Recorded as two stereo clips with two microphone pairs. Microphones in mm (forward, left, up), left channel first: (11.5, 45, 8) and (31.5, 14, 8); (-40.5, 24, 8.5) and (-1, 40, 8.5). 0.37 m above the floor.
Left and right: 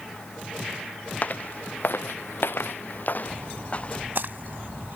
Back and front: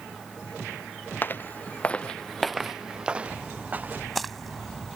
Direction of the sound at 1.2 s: 170° left.